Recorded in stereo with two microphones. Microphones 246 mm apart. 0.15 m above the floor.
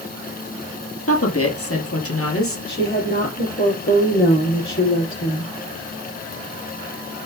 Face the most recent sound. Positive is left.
turn(degrees=50)  # may be behind; listen again after turning